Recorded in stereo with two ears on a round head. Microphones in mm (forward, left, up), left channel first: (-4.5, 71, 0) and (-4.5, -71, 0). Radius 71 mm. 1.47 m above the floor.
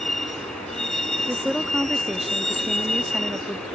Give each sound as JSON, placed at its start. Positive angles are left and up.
{"t": 0.0, "sound": "a vehicle", "side_deg": 5}
{"t": 1.3, "sound": "a woman speaking", "side_deg": 0}